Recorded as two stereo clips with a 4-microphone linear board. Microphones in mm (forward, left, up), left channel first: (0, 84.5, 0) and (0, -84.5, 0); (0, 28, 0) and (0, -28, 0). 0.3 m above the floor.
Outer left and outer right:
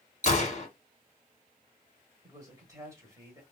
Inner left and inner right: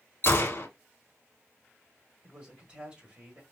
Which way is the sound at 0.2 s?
50° left (ahead or behind).